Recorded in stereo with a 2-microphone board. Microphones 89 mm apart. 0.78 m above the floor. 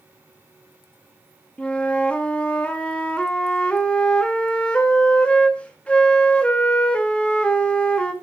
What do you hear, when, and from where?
1.6 s a flute: 10° left (ahead or behind), 0.9 m